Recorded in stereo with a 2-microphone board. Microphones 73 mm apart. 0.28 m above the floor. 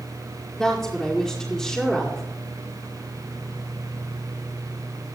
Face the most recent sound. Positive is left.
turn(degrees=5)  # may be behind; listen again after turning